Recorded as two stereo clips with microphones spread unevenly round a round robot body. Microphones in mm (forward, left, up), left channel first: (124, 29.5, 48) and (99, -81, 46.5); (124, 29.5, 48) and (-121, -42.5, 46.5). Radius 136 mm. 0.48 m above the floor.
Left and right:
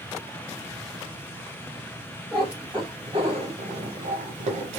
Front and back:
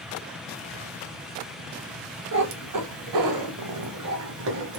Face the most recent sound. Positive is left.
turn(degrees=-115)